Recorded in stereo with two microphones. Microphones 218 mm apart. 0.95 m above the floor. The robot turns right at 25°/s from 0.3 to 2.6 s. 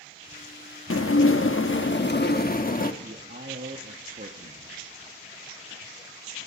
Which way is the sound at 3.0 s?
45° right (ahead or behind).